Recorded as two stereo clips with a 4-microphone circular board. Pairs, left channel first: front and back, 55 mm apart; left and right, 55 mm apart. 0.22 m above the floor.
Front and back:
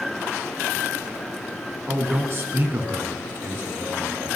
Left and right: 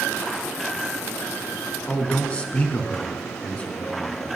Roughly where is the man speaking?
Behind left.